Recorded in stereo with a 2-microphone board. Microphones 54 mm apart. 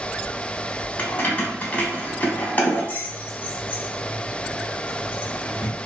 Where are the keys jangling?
35° left (ahead or behind), 0.8 m.